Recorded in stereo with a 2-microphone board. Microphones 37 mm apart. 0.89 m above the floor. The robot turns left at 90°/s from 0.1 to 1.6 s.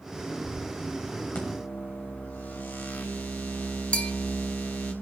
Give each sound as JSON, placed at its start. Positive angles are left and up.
{"t": 1.4, "sound": "a microwave", "side_deg": 45, "distance_m": 3.5}
{"t": 3.9, "sound": "a bell", "side_deg": 30, "distance_m": 1.5}